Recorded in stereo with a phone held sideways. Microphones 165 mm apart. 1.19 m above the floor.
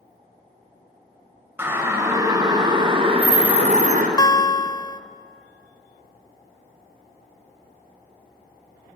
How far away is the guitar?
About 0.7 m.